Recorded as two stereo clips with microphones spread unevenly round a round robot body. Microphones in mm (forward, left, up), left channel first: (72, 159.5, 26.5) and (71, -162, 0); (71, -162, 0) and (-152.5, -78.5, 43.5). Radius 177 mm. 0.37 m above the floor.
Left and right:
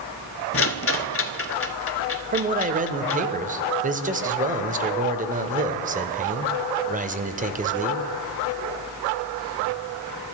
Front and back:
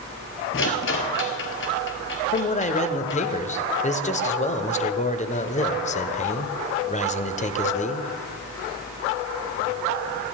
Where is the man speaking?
45° right, 1.0 m.